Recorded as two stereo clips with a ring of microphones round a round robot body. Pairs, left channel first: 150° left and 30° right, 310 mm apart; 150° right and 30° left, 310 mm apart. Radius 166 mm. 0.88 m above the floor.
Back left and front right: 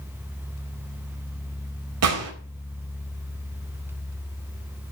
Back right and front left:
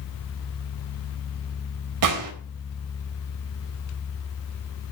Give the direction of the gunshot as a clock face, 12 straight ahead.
12 o'clock.